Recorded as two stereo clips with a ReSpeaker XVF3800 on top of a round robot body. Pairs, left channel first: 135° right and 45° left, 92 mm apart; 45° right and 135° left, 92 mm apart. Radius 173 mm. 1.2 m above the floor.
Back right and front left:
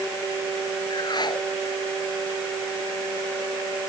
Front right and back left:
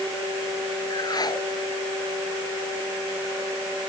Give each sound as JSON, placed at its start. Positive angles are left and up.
{"t": 0.9, "sound": "a whoosh", "azimuth_deg": -95}